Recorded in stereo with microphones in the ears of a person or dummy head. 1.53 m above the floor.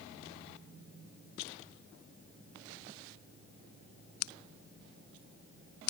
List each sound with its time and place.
Only background noise.